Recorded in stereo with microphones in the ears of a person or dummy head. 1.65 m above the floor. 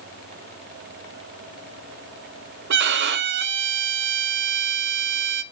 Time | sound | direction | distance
2.7 | a violin | 60° right (ahead or behind) | 0.5 m